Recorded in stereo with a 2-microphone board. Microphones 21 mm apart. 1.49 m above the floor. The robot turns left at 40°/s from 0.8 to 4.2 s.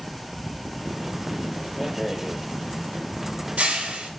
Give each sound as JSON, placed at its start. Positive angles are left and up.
{"t": 1.8, "sound": "a rattle", "side_deg": 5, "distance_m": 3.5}